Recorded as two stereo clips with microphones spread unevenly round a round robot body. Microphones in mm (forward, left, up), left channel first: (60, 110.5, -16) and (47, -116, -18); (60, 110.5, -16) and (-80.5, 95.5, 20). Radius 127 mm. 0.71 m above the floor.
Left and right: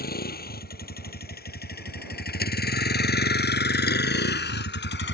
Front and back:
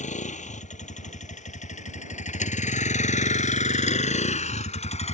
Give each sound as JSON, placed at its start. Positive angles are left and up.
{"t": 0.0, "sound": "a vehicle", "azimuth_deg": 40}